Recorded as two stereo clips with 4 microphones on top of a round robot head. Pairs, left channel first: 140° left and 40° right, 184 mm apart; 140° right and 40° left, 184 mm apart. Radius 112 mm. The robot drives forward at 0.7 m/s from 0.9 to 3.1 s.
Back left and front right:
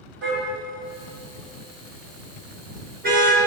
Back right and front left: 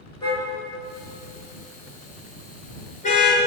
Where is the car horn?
70° right, 6 m; by 3.4 s 85° right, 5.5 m.